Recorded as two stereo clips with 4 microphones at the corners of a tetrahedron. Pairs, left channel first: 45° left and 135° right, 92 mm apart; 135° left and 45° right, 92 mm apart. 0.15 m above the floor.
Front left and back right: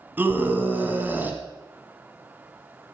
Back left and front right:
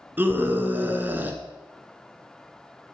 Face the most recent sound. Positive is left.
turn(degrees=-90)